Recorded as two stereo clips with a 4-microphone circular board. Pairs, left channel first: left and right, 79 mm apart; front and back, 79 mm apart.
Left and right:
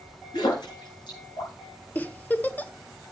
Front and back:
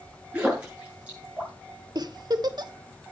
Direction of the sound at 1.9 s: 155° left.